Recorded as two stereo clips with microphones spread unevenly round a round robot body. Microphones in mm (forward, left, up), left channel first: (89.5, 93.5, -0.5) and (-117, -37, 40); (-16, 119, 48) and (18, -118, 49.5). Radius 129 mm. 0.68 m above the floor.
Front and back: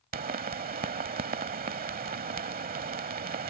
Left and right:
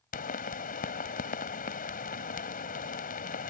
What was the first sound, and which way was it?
A pop, 155° left.